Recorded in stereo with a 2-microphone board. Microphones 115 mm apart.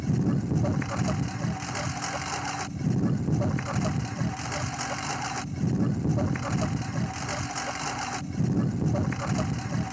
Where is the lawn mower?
Centre (ahead or behind).